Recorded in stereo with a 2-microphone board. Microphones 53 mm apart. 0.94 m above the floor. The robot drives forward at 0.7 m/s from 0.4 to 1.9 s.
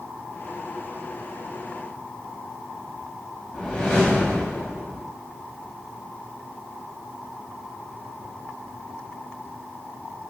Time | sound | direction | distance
3.5 | a whoosh | 20° left (ahead or behind) | 0.8 m